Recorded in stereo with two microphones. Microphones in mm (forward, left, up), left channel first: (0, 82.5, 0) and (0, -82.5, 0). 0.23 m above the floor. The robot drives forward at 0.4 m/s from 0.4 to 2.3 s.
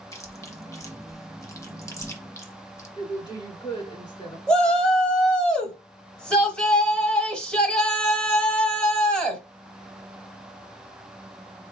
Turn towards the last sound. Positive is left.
turn(degrees=5)  # may be behind; listen again after turning